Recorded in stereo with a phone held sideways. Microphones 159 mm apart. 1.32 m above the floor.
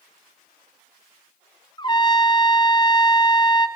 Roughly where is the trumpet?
Left.